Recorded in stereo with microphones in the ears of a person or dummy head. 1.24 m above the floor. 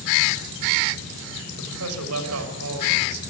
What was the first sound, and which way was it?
A man speaking, 85° right.